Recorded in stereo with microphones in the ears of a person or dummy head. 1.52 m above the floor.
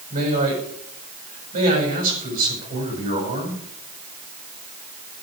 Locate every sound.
0.1 s a man speaking: 50° right (ahead or behind), 7.5 m